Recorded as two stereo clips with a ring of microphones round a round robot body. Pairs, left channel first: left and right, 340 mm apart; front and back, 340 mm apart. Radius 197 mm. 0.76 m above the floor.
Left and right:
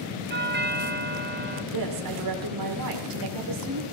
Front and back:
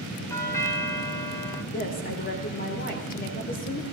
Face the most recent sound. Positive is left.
turn(degrees=-65)